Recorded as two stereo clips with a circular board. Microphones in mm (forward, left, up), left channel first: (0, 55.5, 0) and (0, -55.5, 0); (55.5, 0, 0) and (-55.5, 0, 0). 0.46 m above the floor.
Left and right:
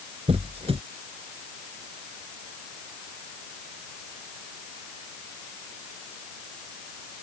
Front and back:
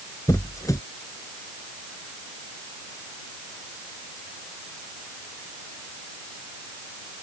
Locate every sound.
0.3 s a squeak: 60° right